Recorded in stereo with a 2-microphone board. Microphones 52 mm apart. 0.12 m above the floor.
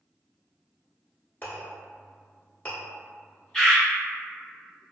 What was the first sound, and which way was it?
A clink, 35° left (ahead or behind).